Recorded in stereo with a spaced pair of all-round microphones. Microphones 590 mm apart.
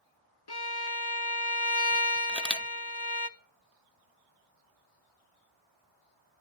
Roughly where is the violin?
Left.